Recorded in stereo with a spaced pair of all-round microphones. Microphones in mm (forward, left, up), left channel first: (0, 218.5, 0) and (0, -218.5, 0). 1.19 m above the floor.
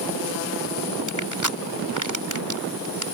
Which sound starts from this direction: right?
Crushing, at 1.1 s.